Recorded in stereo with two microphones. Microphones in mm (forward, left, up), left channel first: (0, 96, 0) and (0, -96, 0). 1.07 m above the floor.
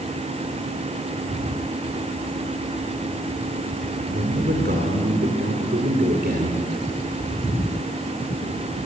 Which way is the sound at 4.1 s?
55° right (ahead or behind).